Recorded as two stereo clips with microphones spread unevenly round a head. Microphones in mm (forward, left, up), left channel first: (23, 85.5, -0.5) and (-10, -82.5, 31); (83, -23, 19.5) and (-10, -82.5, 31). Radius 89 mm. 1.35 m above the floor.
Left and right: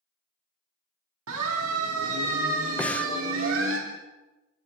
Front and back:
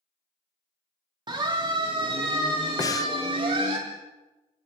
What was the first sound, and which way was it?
A siren, 100° right.